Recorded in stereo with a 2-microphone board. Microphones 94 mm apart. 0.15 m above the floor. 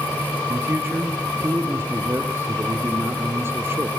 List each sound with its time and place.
0.5 s a man speaking: 25° right (ahead or behind), 3 m